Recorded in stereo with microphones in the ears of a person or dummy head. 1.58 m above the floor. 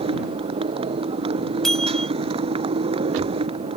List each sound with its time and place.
0.0 s a motorcycle: 30° right (ahead or behind)
1.6 s a bell: centre (ahead or behind)